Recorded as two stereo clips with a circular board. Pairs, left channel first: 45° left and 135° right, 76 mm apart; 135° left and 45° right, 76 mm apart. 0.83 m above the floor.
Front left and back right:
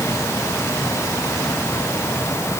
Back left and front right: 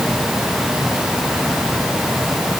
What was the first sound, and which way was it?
Only background noise.